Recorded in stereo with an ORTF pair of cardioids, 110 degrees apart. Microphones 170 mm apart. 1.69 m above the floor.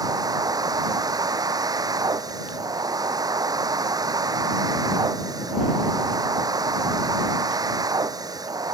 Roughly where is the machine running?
Ahead.